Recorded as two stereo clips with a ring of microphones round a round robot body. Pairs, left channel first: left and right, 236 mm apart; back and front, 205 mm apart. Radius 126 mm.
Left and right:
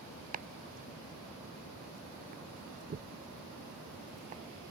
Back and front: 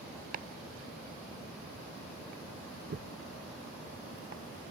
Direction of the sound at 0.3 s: 40° right.